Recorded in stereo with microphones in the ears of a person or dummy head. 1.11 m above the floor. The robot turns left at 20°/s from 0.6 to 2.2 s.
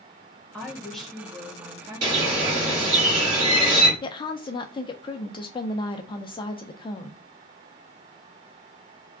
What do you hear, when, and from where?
0.5 s a woman speaking: 10° left, 1.2 m; by 3.0 s 25° right, 1.2 m
2.0 s a bird: 35° right (ahead or behind), 2.0 m
4.0 s a woman speaking: 30° left (ahead or behind), 0.5 m